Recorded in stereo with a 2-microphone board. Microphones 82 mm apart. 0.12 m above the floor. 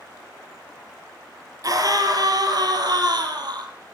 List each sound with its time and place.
1.6 s a scream: 50° right (ahead or behind), 3.5 m; by 3.7 s 65° right (ahead or behind), 4 m